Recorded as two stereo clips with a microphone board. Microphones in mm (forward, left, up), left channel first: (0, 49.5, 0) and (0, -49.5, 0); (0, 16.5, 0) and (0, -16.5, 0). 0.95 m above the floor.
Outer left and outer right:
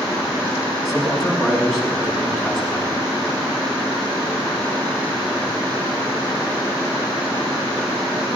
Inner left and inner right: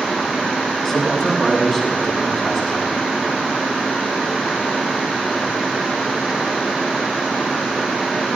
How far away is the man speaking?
About 6.5 m.